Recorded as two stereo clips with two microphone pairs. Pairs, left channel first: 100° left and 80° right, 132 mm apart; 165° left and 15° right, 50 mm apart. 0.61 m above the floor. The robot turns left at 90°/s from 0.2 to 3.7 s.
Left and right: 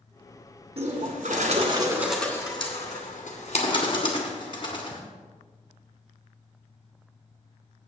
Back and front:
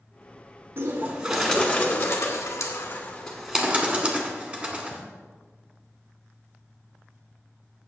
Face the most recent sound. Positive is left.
turn(degrees=50)